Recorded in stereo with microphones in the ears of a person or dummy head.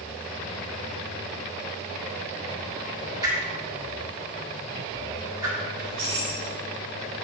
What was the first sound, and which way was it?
A whoosh, 20° right (ahead or behind).